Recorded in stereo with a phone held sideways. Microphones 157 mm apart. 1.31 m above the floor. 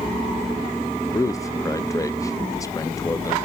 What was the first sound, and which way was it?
A man speaking, 20° left (ahead or behind).